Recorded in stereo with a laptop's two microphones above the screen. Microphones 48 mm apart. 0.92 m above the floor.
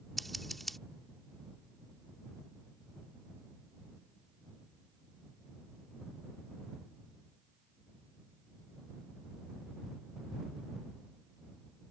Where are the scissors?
Centre (ahead or behind).